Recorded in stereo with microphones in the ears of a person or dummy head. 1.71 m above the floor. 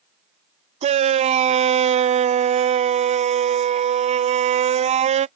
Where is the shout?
35° right (ahead or behind).